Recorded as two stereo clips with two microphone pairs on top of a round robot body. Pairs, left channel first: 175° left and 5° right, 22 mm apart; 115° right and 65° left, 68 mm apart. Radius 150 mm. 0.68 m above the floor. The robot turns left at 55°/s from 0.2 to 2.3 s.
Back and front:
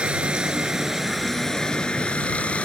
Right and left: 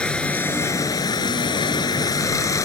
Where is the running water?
40° right; by 2.6 s 155° right.